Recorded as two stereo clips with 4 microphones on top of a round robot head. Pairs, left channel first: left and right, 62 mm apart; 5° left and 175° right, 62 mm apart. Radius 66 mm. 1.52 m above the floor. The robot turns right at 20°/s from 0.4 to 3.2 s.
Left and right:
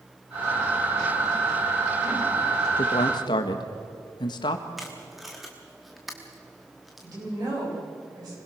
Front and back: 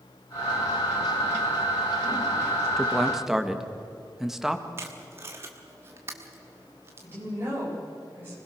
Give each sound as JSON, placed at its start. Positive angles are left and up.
{"t": 2.8, "sound": "a man speaking", "azimuth_deg": 90, "distance_m": 1.7}
{"t": 4.8, "sound": "tape being pulled", "azimuth_deg": 180, "distance_m": 1.1}
{"t": 7.0, "sound": "a woman speaking", "azimuth_deg": -115, "distance_m": 9.0}